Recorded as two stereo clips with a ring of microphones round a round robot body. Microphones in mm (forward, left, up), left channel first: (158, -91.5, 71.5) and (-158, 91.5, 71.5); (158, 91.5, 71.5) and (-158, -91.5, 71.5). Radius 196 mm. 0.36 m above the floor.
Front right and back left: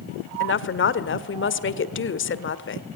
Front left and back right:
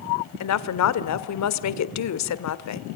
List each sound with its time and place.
0.4 s a woman speaking: 15° left, 1.4 m